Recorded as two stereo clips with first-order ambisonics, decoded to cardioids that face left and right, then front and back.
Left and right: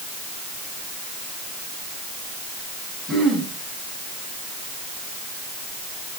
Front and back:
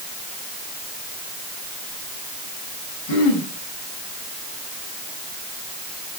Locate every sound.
3.1 s throat clearing: 15° right, 6.5 m